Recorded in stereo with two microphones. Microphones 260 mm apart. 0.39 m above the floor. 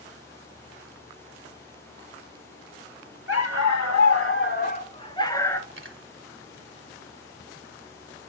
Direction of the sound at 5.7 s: 50° right (ahead or behind).